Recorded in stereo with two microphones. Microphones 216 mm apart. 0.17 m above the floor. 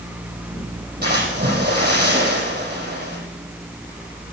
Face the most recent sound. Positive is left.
turn(degrees=-50)  # may be behind; listen again after turning